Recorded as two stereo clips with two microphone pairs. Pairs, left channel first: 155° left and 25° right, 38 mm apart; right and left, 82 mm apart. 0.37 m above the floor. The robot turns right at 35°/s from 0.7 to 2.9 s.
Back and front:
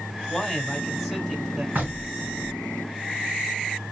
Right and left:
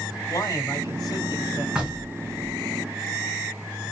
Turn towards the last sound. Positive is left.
turn(degrees=50)